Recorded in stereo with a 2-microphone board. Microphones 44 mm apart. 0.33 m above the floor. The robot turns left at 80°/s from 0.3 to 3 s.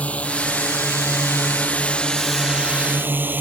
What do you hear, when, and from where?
0.0 s a drone: 35° left (ahead or behind); by 3.4 s 50° right (ahead or behind)